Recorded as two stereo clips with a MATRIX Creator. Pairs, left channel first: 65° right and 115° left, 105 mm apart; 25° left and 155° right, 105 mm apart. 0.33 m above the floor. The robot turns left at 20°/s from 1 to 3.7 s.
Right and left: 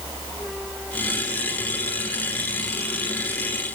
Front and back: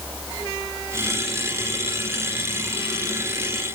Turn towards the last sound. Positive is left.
No sound to turn to.